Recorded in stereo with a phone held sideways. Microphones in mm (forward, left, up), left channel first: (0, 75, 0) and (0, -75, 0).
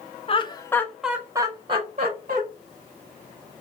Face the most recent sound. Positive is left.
turn(degrees=-50)  # may be behind; listen again after turning